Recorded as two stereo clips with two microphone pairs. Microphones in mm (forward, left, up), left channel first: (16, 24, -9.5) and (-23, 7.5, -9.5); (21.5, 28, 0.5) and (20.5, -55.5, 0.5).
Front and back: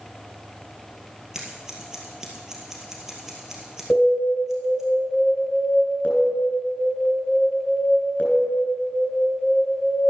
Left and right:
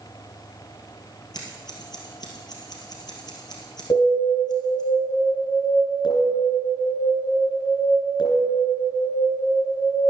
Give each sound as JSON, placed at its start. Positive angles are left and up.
{"t": 1.3, "sound": "scissors", "azimuth_deg": 125, "distance_m": 2.0}
{"t": 3.9, "sound": "an alarm", "azimuth_deg": 75, "distance_m": 3.0}